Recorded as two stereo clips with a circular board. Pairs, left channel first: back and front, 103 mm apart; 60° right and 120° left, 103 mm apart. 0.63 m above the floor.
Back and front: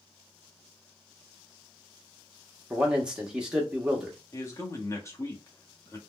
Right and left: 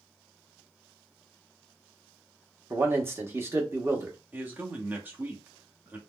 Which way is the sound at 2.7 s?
75° left.